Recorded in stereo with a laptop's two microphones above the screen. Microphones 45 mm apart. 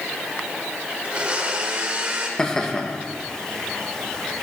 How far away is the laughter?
About 1.2 m.